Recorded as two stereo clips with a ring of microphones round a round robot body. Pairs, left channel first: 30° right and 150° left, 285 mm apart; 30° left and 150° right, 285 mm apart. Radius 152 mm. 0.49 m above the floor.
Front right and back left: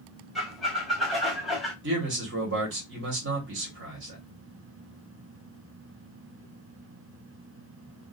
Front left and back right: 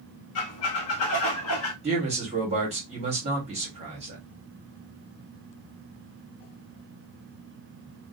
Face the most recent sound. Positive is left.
turn(degrees=155)